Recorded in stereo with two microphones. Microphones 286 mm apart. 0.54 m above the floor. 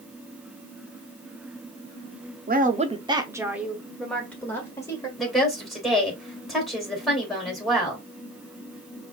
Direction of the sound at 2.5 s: 30° right (ahead or behind).